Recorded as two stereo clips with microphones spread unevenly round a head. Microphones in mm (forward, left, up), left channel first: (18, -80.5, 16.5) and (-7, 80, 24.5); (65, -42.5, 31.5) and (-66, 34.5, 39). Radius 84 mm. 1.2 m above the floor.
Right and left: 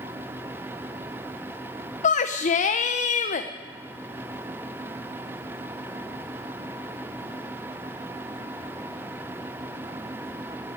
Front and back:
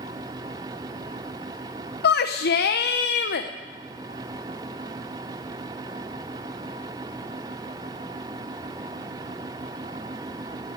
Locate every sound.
2.0 s a shout: 35° right, 0.7 m